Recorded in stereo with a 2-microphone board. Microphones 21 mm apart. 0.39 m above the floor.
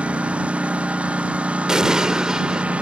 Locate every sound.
0.0 s a lawn mower: 85° right
1.7 s an explosion: 35° right (ahead or behind)